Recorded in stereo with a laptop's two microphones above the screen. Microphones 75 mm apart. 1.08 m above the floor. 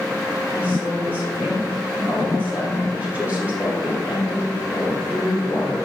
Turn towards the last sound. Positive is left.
turn(degrees=-25)  # may be behind; listen again after turning